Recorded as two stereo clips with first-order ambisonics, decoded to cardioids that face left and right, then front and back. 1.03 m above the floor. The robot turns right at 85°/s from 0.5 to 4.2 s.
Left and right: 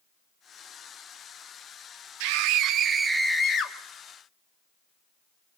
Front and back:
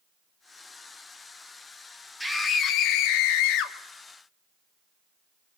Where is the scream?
90° right, 2 m; by 3.8 s 40° left, 2 m.